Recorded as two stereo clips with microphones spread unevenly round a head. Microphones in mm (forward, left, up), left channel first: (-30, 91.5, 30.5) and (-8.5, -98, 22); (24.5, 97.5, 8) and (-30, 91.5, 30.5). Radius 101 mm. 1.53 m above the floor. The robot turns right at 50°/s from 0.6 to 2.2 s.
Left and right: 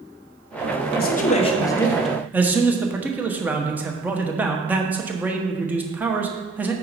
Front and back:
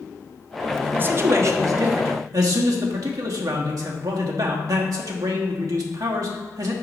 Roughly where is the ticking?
I don't hear ticking.